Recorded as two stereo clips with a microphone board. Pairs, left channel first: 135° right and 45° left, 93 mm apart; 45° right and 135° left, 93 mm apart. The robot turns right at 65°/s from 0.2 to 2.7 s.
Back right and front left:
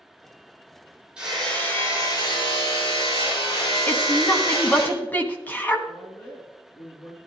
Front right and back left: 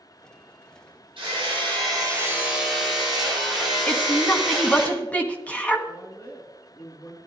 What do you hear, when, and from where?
1.2 s hammering: 125° left, 5.5 m; by 4.9 s 135° right, 5.5 m
3.9 s a woman speaking: 100° right, 1.5 m
5.9 s a woman speaking: 90° right, 2 m